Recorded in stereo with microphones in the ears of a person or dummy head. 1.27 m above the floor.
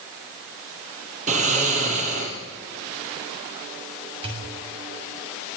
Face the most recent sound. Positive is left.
turn(degrees=-35)  # may be behind; listen again after turning